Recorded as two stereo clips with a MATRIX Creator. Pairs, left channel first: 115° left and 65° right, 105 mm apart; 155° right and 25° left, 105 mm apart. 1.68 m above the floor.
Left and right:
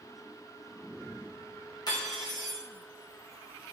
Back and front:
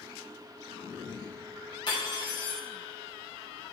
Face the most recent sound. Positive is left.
turn(degrees=165)